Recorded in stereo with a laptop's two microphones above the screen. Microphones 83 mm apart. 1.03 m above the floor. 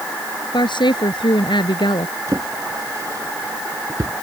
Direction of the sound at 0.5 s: 90° left.